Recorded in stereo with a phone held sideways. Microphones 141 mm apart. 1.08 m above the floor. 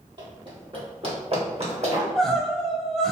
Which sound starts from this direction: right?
Running footsteps, at 0.2 s.